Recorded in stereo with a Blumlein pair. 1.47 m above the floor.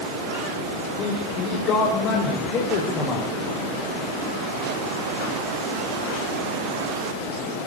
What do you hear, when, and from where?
1.0 s a man speaking: 35° left, 6 m; by 3.3 s 25° left, 6.5 m